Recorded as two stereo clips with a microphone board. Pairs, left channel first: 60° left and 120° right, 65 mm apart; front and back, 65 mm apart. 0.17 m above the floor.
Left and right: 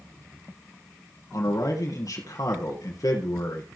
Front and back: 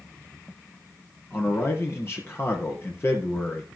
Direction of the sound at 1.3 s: 45° left.